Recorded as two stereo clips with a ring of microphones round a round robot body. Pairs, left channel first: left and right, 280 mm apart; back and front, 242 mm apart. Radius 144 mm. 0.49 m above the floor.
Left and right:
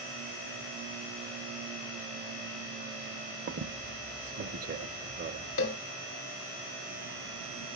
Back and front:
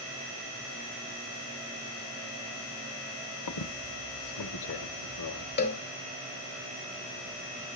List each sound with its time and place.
3.5 s a squeak: 150° right, 0.6 m
5.6 s a cowbell: 135° left, 1.9 m